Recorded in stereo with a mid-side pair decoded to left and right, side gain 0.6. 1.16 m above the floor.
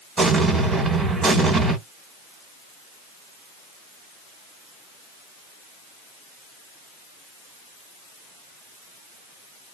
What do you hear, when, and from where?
0.2 s an explosion: 25° right, 1.8 m